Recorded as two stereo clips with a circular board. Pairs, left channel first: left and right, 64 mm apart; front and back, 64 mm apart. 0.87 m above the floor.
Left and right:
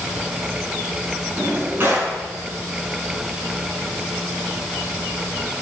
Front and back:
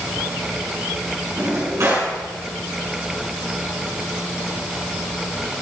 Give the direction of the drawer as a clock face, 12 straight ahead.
5 o'clock.